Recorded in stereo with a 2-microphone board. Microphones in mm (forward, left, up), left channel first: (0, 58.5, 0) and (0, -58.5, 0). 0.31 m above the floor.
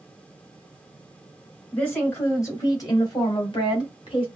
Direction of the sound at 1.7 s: 15° left (ahead or behind).